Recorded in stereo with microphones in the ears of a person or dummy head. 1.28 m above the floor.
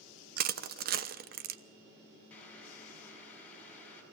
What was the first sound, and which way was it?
Crushing, 55° right (ahead or behind).